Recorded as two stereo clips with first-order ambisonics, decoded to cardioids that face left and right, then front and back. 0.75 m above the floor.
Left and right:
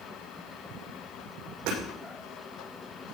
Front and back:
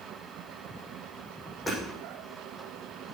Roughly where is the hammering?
Right.